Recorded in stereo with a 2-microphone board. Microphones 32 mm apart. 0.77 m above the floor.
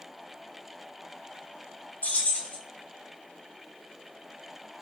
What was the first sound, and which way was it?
Keys jangling, 70° left (ahead or behind).